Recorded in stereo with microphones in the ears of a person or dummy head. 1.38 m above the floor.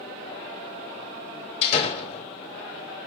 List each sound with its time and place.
1.6 s a door slam: 35° left (ahead or behind), 3.5 m